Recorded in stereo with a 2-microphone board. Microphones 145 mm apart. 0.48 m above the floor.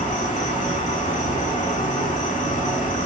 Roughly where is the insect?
Left.